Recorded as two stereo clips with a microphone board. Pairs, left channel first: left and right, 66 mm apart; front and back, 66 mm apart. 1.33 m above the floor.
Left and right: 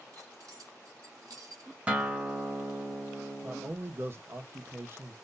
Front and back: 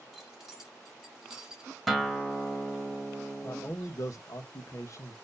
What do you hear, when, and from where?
0.1 s keys jangling: 95° right, 2.0 m; by 1.8 s 105° right, 1.0 m
1.9 s a guitar: 85° right, 1.1 m
3.4 s a man speaking: 35° right, 0.9 m